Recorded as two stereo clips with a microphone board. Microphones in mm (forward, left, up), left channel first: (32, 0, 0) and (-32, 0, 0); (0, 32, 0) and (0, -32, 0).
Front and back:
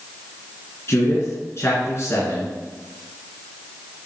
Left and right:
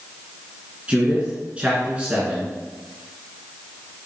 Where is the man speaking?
25° right, 2 m.